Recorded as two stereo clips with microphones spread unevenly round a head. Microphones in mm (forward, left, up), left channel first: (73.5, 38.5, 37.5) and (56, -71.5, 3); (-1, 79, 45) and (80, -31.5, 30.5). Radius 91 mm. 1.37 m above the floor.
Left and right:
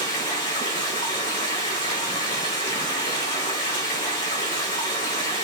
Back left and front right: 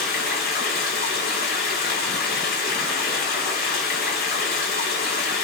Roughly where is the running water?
Behind left.